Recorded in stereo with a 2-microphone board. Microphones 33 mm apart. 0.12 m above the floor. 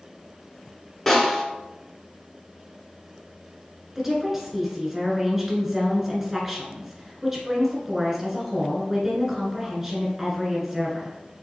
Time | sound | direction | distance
1.1 | a snare drum | 10° left (ahead or behind) | 1.5 m
4.0 | a woman speaking | 10° right (ahead or behind) | 1.5 m